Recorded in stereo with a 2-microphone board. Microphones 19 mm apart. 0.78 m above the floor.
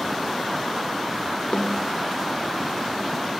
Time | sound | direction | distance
1.5 | a snare drum | 70° left (ahead or behind) | 2.5 m